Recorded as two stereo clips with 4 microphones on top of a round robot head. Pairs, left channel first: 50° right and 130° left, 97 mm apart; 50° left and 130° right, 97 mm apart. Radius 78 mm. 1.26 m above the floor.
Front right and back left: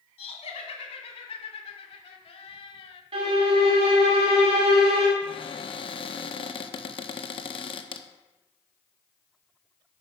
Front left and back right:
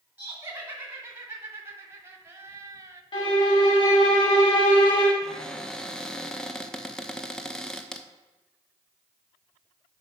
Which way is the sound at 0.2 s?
60° right.